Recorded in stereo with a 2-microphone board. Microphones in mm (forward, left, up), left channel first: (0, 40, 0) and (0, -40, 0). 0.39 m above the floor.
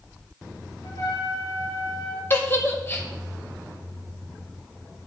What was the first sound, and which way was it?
A trumpet, 45° left (ahead or behind).